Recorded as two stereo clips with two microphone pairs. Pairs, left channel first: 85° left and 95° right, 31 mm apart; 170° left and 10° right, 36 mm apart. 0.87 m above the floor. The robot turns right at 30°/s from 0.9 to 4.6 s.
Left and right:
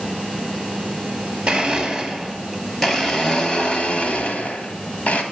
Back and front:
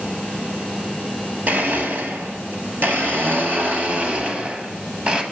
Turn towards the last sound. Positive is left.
turn(degrees=55)